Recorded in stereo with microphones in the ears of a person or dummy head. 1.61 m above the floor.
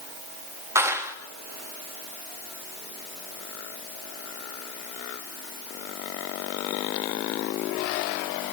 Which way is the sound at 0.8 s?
5° right (ahead or behind).